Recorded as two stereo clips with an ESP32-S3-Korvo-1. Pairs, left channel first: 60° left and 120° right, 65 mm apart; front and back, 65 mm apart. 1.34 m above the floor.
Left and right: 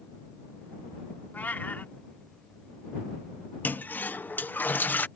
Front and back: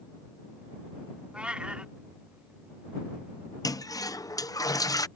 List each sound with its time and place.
1.3 s a cat meowing: 110° left
3.6 s a toilet flushing: straight ahead